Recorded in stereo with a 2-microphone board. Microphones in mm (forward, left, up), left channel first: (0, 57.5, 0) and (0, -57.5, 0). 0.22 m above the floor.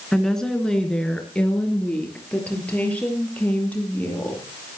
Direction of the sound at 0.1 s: 5° left (ahead or behind).